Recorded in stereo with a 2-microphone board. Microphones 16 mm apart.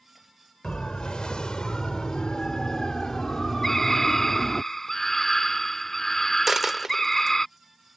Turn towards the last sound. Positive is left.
turn(degrees=-30)  # may be behind; listen again after turning